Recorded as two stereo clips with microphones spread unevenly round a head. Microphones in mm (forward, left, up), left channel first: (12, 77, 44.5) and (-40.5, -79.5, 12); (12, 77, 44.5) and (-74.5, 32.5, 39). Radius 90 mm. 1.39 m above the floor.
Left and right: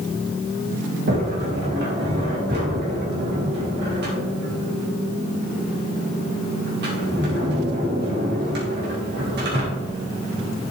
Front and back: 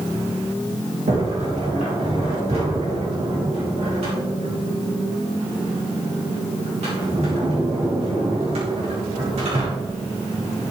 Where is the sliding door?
125° right, 3.5 m.